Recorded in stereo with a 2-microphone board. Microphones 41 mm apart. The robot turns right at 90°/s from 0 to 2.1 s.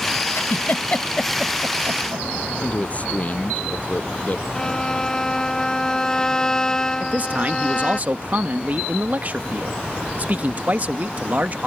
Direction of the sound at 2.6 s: 35° left (ahead or behind).